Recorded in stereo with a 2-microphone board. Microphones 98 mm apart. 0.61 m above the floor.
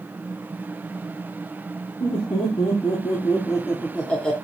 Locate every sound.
2.0 s laughter: 60° left (ahead or behind), 1.5 m; by 4.3 s 5° left (ahead or behind), 1.2 m